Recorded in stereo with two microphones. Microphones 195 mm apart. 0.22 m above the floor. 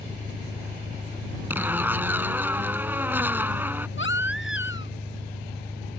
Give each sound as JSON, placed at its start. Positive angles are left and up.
{"t": 0.0, "sound": "an engine running", "side_deg": 15}
{"t": 1.5, "sound": "a zipper", "side_deg": -10}
{"t": 4.0, "sound": "a baby crying", "side_deg": 80}